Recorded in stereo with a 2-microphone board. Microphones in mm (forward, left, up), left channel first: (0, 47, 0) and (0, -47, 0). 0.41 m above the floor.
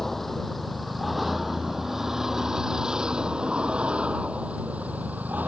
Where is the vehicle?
5° left (ahead or behind); by 5.5 s 15° right (ahead or behind).